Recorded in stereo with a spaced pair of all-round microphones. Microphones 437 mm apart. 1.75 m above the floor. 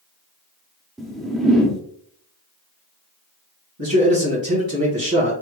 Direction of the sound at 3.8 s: 50° right (ahead or behind).